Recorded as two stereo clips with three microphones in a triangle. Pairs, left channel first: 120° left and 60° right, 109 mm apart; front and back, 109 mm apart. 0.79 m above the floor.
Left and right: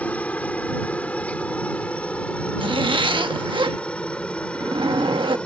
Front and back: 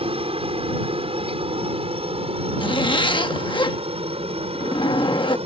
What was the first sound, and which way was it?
A helicopter, 165° right.